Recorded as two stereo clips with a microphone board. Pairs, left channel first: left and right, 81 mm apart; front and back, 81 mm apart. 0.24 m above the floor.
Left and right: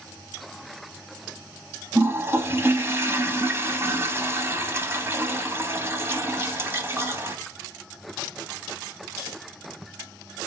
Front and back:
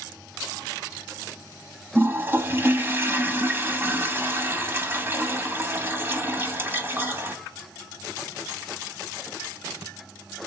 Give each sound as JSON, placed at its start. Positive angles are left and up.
{"t": 1.9, "sound": "a toilet flushing", "azimuth_deg": -130, "distance_m": 0.7}